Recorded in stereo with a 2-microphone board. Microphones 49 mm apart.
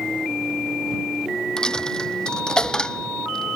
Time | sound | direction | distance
1.6 | a dropped coin | 15° left (ahead or behind) | ?